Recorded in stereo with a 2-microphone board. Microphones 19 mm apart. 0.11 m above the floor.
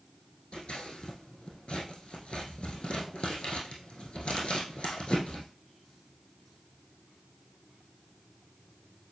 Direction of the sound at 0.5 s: 75° left (ahead or behind).